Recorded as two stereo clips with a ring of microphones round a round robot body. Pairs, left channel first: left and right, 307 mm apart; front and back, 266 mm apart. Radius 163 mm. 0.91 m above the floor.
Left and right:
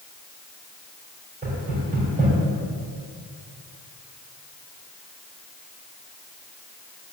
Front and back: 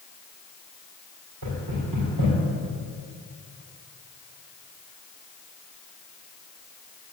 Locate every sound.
1.4 s knocking: 155° right, 5 m